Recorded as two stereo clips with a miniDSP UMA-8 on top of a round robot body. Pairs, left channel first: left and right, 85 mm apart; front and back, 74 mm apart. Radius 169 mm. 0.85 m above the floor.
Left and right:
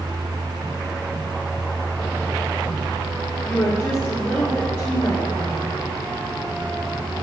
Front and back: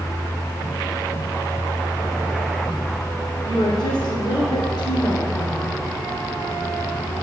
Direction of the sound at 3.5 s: 25° left.